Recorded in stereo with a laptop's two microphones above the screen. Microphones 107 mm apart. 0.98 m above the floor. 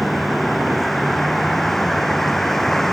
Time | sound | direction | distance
0.0 | a vehicle | centre (ahead or behind) | ?